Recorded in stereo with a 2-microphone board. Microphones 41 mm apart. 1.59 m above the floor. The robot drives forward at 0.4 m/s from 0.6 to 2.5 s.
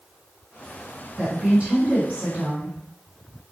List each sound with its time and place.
1.2 s a woman speaking: 35° right (ahead or behind), 1.5 m; by 2.8 s 25° right (ahead or behind), 1.9 m